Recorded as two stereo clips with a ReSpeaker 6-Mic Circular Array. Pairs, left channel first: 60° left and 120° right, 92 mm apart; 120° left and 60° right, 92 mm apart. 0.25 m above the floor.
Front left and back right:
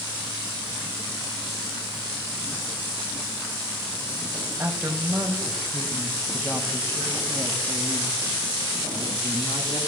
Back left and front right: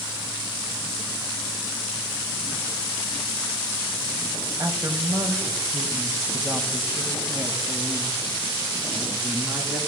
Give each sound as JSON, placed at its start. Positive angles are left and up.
{"t": 4.6, "sound": "a woman speaking", "azimuth_deg": -75, "distance_m": 1.1}